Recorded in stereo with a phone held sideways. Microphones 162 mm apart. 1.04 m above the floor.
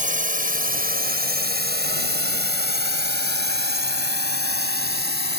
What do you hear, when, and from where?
0.0 s a drone: 50° right (ahead or behind); by 5.4 s 75° right (ahead or behind)